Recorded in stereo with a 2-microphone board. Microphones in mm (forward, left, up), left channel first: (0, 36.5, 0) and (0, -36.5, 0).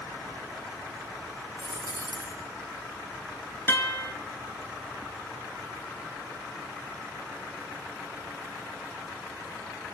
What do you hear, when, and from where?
1.6 s a dropped coin: 65° left (ahead or behind), 3.5 m
3.7 s a guitar: 25° left (ahead or behind), 3 m